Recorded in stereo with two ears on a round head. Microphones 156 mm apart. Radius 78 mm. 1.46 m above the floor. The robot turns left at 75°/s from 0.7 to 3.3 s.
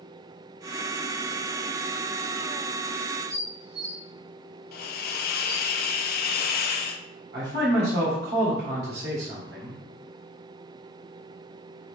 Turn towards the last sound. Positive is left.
turn(degrees=-65)  # may be behind; listen again after turning